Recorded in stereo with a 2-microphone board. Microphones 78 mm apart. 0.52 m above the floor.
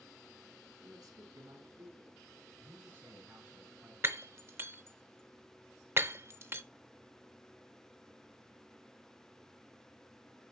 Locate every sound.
0.8 s a man speaking: 60° right (ahead or behind), 3.5 m
2.5 s a man speaking: 30° right (ahead or behind), 5.5 m
4.0 s breaking glass: 35° right (ahead or behind), 0.6 m